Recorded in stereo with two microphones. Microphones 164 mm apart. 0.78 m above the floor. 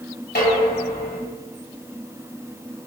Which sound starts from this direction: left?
Dishes clattering, at 0.3 s.